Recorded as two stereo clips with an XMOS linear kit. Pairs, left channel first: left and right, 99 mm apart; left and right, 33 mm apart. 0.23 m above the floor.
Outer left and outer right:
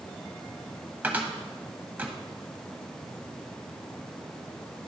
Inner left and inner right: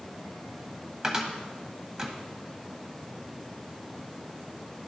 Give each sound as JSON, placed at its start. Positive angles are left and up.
{"t": 1.0, "sound": "a cupboard door", "side_deg": -15, "distance_m": 0.9}